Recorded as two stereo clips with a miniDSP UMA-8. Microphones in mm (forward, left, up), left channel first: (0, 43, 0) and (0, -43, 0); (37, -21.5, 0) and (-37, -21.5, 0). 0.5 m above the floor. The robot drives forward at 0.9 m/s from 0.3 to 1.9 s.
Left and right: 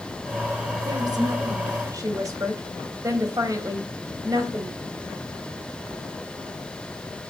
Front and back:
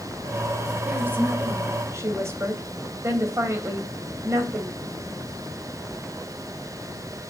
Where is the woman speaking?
115° right, 2.5 m; by 4.8 s 135° right, 3 m.